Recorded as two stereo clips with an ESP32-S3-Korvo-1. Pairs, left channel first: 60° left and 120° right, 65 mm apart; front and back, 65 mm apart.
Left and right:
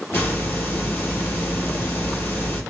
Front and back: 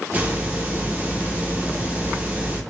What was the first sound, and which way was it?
A hiss, 115° left.